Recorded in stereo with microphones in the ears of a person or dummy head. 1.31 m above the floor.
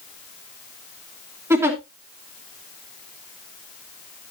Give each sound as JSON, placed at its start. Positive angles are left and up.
{"t": 1.5, "sound": "a giggle", "side_deg": -15, "distance_m": 2.5}